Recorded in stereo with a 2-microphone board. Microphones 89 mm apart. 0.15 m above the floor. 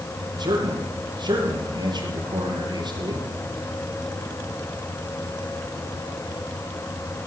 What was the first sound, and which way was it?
A man speaking, 55° right (ahead or behind).